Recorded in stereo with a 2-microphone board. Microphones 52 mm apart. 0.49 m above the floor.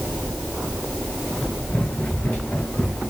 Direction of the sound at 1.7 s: 30° left (ahead or behind).